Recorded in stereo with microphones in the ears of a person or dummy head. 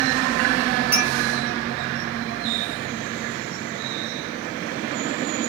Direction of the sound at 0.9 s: Centre (ahead or behind).